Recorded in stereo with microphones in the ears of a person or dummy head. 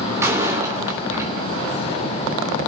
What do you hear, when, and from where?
0.2 s a door slam: 15° right (ahead or behind), 3 m